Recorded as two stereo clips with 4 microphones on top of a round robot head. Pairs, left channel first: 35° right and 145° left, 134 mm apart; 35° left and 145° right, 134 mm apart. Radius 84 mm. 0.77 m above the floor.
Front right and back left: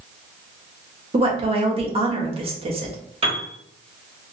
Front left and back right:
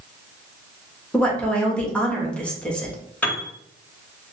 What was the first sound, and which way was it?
A woman speaking, 115° left.